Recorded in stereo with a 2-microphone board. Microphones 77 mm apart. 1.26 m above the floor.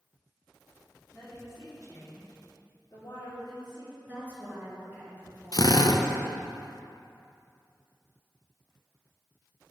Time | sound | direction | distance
1.1 | a woman speaking | 30° left (ahead or behind) | 2.5 m
4.0 | a woman speaking | 20° right (ahead or behind) | 2.5 m
5.5 | a drill | 50° left (ahead or behind) | 0.5 m